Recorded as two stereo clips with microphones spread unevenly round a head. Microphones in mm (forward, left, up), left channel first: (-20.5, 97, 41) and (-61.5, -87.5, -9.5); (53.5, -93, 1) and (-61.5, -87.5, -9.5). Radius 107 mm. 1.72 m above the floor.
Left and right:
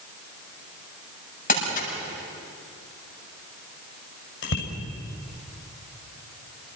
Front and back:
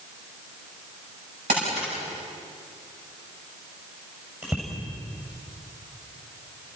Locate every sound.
1.5 s crumpling: 120° left, 8.5 m
4.4 s a bicycle bell: 95° left, 6 m